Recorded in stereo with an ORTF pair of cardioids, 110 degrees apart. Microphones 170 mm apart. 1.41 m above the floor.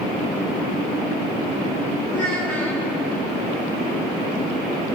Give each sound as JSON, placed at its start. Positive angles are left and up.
{"t": 2.1, "sound": "a child speaking", "azimuth_deg": 15, "distance_m": 3.5}